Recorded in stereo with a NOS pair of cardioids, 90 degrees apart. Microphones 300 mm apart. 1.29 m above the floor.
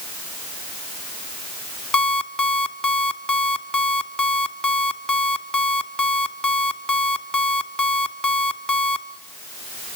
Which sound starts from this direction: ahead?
An alarm clock, at 1.9 s.